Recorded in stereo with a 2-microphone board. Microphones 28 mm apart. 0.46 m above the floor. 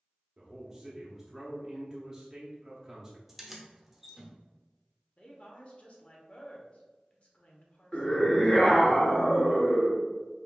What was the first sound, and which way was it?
A man speaking, 20° right (ahead or behind).